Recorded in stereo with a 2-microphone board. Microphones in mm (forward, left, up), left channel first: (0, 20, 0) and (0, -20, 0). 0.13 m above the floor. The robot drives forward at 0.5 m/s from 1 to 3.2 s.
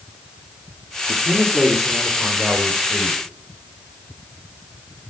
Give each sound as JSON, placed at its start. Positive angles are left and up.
{"t": 1.1, "sound": "a man speaking", "side_deg": -15, "distance_m": 3.0}